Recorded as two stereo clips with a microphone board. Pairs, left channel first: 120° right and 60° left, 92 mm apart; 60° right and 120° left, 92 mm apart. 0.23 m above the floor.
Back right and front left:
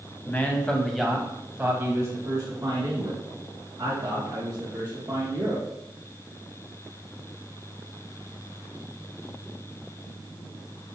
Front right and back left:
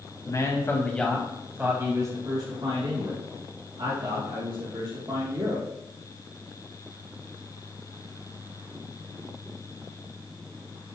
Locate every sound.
0.2 s a man speaking: 65° right, 1.5 m; by 5.6 s 105° left, 4.5 m